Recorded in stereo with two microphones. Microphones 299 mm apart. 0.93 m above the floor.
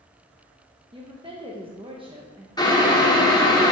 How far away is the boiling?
About 1.2 m.